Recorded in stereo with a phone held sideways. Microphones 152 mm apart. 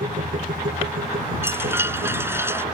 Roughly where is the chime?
Centre.